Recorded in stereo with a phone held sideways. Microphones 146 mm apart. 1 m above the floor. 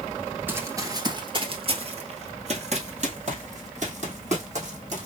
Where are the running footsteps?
15° right (ahead or behind), 1.0 m; by 5.1 s 55° right (ahead or behind), 3 m.